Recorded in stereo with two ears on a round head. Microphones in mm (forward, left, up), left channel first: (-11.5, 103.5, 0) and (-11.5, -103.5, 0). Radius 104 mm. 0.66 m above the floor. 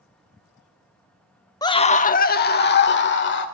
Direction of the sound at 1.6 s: 15° left (ahead or behind).